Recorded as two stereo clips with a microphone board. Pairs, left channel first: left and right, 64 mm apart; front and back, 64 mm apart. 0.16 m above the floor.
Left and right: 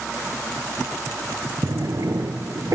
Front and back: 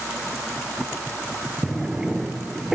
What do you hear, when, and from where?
1.6 s a drawer: 100° right, 1.2 m